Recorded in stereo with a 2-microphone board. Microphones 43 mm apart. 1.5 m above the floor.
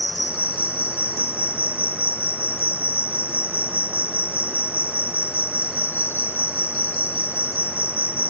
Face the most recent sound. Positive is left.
turn(degrees=60)  # may be behind; listen again after turning